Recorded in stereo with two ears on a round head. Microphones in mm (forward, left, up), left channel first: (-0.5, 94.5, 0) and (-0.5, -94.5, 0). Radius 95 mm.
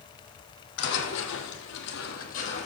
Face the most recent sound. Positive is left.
turn(degrees=30)  # may be behind; listen again after turning